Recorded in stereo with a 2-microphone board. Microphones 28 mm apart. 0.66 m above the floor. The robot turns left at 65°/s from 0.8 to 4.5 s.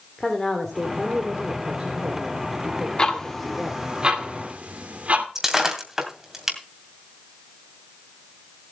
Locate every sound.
0.2 s a woman speaking: 10° left, 2.5 m; by 3.8 s 175° left, 2.5 m
3.0 s ticking: 25° left (ahead or behind), 1.9 m; by 5.2 s 60° right (ahead or behind), 1.9 m
5.3 s breaking glass: 15° right (ahead or behind), 2.5 m